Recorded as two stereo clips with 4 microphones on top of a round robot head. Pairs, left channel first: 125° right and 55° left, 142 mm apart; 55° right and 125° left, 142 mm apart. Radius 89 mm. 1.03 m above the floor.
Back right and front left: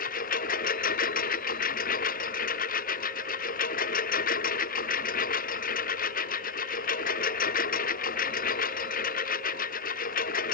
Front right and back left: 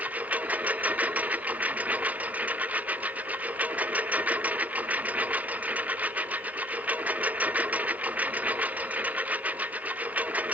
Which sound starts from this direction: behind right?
A lawn mower, at 0.0 s.